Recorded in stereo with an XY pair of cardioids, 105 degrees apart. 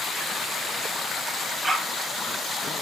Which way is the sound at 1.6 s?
20° right.